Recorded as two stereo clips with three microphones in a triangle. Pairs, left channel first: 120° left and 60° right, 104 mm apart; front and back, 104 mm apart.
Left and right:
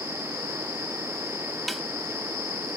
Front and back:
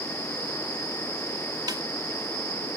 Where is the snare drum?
150° right.